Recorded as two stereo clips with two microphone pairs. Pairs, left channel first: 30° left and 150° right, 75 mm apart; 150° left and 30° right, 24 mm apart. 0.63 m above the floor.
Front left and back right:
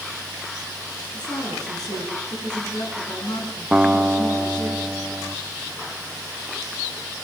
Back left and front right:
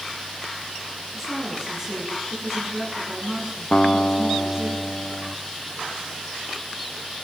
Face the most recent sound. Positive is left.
turn(degrees=135)